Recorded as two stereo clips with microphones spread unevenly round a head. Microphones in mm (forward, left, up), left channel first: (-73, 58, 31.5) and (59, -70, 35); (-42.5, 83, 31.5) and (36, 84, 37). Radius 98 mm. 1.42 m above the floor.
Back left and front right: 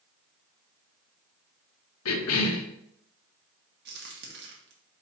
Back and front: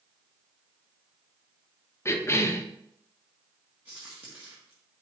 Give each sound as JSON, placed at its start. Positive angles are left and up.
{"t": 2.0, "sound": "a cough", "azimuth_deg": 125, "distance_m": 1.1}
{"t": 3.9, "sound": "a crack", "azimuth_deg": -75, "distance_m": 1.6}